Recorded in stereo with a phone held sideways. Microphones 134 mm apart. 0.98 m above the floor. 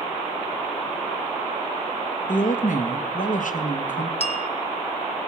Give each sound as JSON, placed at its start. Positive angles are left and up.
{"t": 2.3, "sound": "a woman speaking", "side_deg": 75, "distance_m": 0.9}
{"t": 4.2, "sound": "a bell", "side_deg": 50, "distance_m": 0.8}